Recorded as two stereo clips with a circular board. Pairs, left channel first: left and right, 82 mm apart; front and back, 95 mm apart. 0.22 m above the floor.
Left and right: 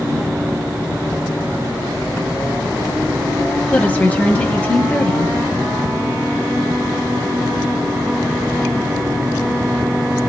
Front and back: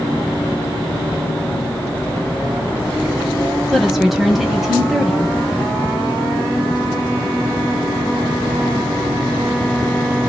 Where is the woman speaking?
95° left, 1.2 m.